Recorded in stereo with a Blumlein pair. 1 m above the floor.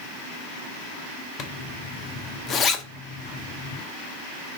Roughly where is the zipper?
Ahead left.